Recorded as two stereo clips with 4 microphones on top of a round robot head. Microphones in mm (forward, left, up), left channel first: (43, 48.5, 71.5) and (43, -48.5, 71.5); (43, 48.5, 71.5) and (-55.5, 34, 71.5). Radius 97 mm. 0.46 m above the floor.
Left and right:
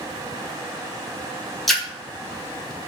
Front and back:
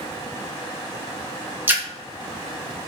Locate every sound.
1.7 s a splash: 175° left, 1.1 m